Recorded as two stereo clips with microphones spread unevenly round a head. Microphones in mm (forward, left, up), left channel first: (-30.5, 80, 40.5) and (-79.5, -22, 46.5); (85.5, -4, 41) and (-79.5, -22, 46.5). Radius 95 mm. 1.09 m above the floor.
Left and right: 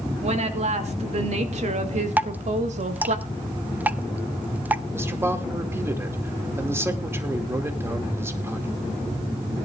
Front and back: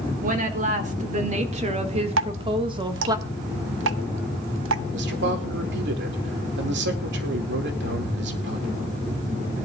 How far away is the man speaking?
About 2.5 m.